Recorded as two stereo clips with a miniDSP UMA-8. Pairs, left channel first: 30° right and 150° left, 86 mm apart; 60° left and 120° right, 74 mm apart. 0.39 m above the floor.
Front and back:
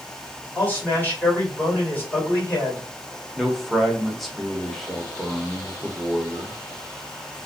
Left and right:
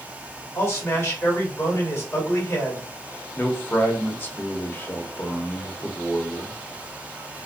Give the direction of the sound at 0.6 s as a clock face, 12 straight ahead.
11 o'clock.